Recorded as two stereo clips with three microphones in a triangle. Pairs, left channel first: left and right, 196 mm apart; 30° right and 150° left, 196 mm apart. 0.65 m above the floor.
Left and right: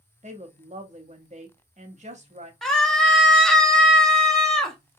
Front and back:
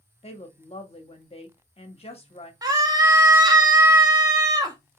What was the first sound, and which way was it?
A woman speaking, 65° right.